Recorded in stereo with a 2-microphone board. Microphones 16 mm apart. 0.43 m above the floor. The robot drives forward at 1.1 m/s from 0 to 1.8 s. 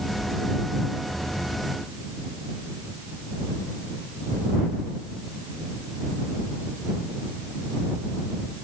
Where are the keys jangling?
No keys jangling in this recording.